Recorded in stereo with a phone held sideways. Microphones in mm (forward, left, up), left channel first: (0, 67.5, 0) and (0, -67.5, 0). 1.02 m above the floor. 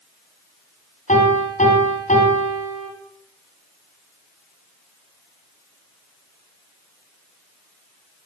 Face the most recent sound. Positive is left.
turn(degrees=65)  # may be behind; listen again after turning